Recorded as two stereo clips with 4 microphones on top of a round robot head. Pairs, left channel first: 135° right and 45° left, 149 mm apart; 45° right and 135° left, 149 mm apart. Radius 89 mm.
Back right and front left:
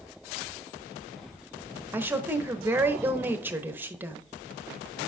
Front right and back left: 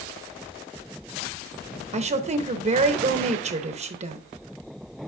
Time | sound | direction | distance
1.9 | a woman speaking | 115° left | 0.9 m